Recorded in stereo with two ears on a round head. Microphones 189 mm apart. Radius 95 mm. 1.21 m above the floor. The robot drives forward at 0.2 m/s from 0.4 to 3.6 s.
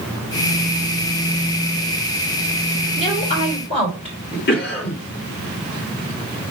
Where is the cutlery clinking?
I don't hear cutlery clinking.